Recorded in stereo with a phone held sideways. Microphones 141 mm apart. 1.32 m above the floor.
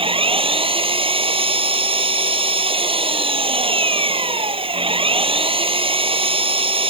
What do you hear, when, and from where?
0.0 s an engine running: 40° right (ahead or behind)